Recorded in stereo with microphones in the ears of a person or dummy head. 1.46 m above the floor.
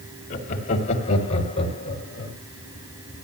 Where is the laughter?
45° left (ahead or behind), 3 m; by 2.4 s 30° left (ahead or behind), 4 m.